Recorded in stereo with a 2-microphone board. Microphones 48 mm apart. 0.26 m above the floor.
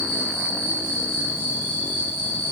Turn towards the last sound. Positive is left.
turn(degrees=-45)  # may be behind; listen again after turning